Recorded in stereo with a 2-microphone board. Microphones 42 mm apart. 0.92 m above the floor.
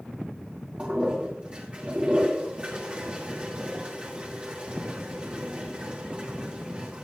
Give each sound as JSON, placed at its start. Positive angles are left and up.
{"t": 0.8, "sound": "a toilet flushing", "side_deg": -25, "distance_m": 2.5}